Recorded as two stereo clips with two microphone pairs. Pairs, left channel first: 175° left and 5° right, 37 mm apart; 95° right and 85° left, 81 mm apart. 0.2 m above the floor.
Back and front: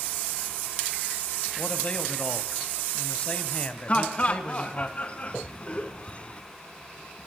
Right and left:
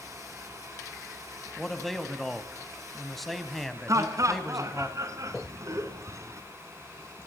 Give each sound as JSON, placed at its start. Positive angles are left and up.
{"t": 1.6, "sound": "a man speaking", "azimuth_deg": 180, "distance_m": 1.4}
{"t": 3.9, "sound": "laughter", "azimuth_deg": 125, "distance_m": 2.5}